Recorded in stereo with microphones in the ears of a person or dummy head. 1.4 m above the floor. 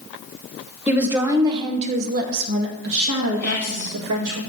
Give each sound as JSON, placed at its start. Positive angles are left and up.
{"t": 0.9, "sound": "a woman speaking", "side_deg": -5, "distance_m": 1.0}
{"t": 3.4, "sound": "whispering", "side_deg": 15, "distance_m": 1.7}